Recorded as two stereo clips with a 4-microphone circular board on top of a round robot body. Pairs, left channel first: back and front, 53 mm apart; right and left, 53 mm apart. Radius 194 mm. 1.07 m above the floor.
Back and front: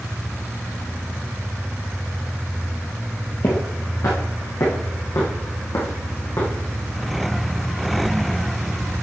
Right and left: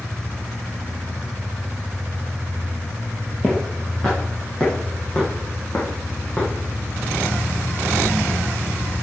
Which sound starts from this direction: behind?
Footsteps, at 3.4 s.